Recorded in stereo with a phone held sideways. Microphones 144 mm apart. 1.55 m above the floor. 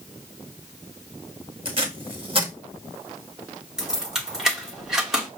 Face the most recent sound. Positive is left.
turn(degrees=-5)  # may be behind; listen again after turning